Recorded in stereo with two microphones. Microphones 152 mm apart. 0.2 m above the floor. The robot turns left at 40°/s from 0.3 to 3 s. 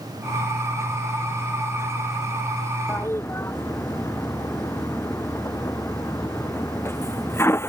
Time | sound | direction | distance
2.9 | a toilet flushing | 10° left (ahead or behind) | ?